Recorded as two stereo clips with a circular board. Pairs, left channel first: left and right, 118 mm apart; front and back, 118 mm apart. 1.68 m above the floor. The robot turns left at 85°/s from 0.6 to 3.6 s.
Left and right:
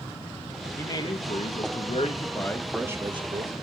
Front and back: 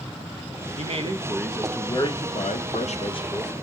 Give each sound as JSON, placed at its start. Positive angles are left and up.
{"t": 0.8, "sound": "a man speaking", "azimuth_deg": 160, "distance_m": 0.6}